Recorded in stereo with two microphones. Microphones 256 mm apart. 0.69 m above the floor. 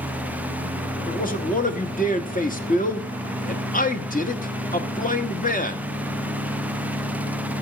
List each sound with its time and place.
1.1 s a man speaking: 30° left (ahead or behind), 1.1 m